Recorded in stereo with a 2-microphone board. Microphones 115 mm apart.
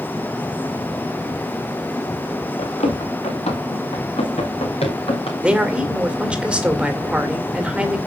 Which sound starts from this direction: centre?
A man speaking, at 5.4 s.